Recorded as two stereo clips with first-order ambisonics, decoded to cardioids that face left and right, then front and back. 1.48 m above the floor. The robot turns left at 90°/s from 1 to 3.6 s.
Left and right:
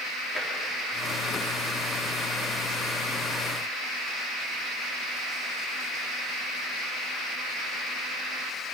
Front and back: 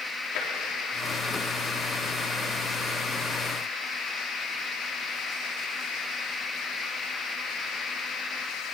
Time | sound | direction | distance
0.3 | tapping | 15° left | 4 m